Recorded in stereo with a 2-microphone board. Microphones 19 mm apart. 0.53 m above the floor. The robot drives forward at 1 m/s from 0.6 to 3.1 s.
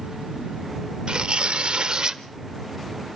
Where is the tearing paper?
50° right (ahead or behind), 0.9 m; by 2.2 s 45° right (ahead or behind), 1.0 m.